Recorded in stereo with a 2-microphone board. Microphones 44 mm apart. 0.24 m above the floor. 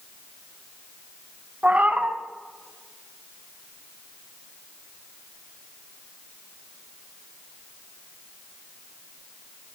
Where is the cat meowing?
35° right (ahead or behind), 1.1 m.